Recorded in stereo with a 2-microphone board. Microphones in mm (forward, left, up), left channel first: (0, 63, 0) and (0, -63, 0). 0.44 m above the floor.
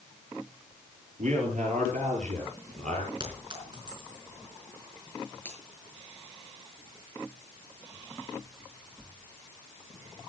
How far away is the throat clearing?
No throat clearing in this recording.